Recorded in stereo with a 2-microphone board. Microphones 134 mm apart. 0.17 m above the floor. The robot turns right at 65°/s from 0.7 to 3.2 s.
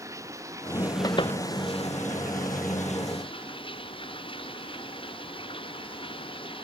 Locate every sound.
0.0 s running water: 25° right; by 6.6 s 140° left
1.0 s a door slam: 25° left (ahead or behind); by 1.4 s 50° left (ahead or behind)